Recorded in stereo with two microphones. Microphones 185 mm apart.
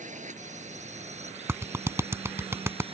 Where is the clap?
15° right (ahead or behind).